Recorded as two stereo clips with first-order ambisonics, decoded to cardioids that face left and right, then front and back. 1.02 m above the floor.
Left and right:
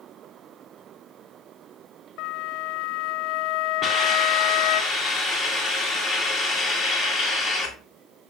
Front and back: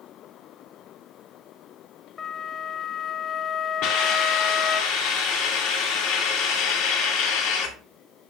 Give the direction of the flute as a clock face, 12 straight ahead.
10 o'clock.